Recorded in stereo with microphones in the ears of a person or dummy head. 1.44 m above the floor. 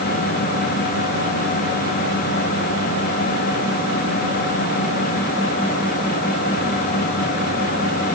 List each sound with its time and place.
Only background noise.